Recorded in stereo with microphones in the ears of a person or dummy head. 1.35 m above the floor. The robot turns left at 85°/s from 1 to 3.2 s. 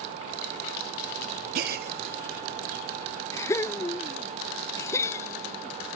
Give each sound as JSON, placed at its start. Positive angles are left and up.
{"t": 1.6, "sound": "a gasp", "side_deg": -45}